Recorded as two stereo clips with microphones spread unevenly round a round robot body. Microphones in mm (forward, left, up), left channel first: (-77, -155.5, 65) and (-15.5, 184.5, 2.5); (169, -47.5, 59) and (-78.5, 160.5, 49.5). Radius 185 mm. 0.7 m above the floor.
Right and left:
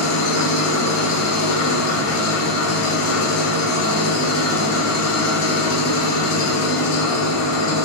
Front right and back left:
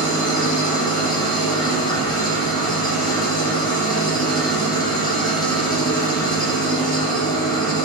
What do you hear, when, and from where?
0.0 s an engine running: 115° right, 0.8 m